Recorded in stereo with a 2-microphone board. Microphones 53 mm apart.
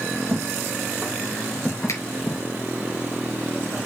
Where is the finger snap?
80° left, 4.5 m.